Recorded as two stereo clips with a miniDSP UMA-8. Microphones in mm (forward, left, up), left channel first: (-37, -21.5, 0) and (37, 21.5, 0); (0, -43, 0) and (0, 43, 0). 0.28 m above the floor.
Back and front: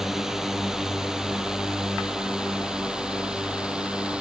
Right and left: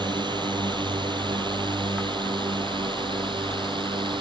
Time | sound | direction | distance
0.0 | a drone | 115° left | ?